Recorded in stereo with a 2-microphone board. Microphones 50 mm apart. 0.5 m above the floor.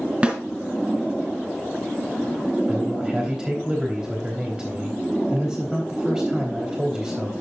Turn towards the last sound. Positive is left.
turn(degrees=-15)  # may be behind; listen again after turning